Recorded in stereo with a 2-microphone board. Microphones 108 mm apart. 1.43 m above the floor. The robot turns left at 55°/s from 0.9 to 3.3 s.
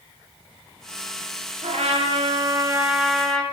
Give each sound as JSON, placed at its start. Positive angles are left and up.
{"t": 1.6, "sound": "a trumpet", "azimuth_deg": -95, "distance_m": 0.8}